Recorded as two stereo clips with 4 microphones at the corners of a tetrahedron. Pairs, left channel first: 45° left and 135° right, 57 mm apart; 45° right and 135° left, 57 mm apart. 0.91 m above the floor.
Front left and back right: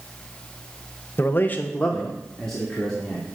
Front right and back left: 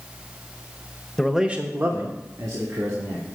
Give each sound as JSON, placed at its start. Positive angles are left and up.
{"t": 1.2, "sound": "a man speaking", "azimuth_deg": 30, "distance_m": 0.8}